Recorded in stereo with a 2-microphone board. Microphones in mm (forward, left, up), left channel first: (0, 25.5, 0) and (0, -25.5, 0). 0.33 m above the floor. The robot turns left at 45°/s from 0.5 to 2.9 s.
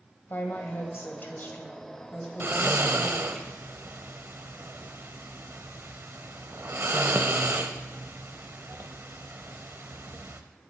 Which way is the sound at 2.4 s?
45° right (ahead or behind).